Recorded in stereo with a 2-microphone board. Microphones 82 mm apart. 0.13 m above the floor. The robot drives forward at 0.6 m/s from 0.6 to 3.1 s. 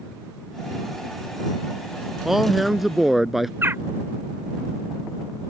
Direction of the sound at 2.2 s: 5° right (ahead or behind).